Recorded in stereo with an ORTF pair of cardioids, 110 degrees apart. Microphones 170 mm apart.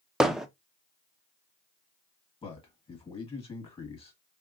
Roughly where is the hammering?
Ahead.